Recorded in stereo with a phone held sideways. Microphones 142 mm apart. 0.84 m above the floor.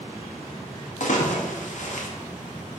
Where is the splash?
60° left (ahead or behind), 0.6 m.